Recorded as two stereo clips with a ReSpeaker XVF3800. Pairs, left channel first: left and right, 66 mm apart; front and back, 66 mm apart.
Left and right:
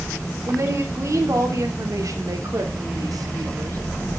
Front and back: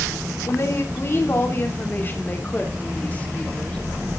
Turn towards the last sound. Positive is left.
turn(degrees=-70)